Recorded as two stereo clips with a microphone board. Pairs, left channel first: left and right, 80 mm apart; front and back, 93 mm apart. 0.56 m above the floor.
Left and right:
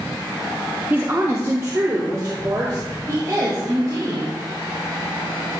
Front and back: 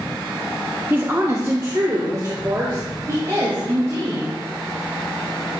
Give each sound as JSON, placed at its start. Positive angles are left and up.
{"t": 0.9, "sound": "a woman speaking", "azimuth_deg": -130, "distance_m": 0.9}